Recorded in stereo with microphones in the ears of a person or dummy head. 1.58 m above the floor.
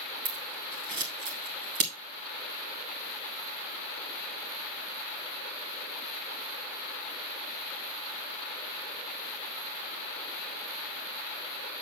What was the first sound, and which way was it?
Scissors, 50° right (ahead or behind).